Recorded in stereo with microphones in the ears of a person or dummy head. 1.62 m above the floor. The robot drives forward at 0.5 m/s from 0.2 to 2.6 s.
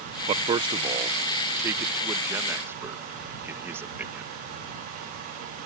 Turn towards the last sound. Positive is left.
turn(degrees=-15)  # may be behind; listen again after turning